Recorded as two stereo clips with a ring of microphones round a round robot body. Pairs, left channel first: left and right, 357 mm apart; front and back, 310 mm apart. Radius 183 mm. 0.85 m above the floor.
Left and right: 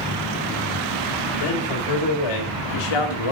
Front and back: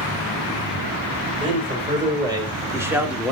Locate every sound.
1.4 s a man speaking: 105° left, 4 m; by 3.3 s 90° left, 1.7 m